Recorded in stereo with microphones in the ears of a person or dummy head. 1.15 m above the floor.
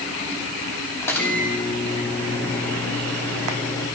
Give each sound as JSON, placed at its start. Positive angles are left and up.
{"t": 1.0, "sound": "a microwave", "side_deg": 5, "distance_m": 3.0}